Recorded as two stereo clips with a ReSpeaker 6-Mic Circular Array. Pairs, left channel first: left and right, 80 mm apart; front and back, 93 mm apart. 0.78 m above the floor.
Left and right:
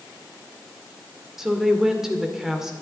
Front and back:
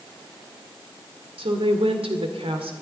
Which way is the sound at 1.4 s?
175° right.